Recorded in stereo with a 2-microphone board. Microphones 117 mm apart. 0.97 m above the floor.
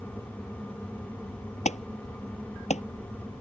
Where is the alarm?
75° left (ahead or behind).